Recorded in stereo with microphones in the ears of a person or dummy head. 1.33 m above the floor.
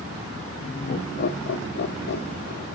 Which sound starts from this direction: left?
Laughter, at 0.6 s.